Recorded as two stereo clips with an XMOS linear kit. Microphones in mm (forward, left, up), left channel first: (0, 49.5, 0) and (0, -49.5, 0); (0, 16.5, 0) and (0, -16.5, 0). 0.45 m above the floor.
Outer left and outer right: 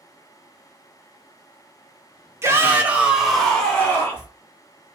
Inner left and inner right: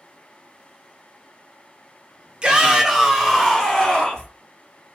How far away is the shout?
About 0.8 m.